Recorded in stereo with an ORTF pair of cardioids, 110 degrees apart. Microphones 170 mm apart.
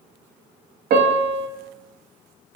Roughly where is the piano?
Ahead right.